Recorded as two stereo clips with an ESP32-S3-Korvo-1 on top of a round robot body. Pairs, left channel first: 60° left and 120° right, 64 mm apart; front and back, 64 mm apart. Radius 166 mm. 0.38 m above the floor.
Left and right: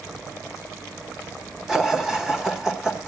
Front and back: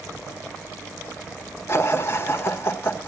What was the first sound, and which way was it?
Laughter, 40° right.